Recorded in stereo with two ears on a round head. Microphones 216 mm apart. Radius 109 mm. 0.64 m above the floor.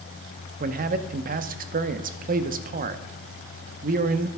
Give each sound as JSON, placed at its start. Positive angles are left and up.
{"t": 0.6, "sound": "a man speaking", "side_deg": -35, "distance_m": 0.6}